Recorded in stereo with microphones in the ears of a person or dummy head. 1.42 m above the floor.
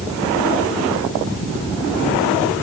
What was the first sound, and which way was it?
Only background noise.